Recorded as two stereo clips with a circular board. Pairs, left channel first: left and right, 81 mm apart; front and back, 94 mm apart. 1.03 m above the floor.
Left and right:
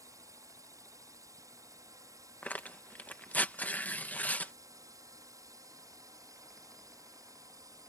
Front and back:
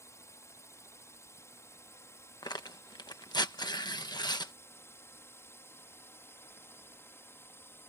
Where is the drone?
55° right; by 7.9 s 60° right.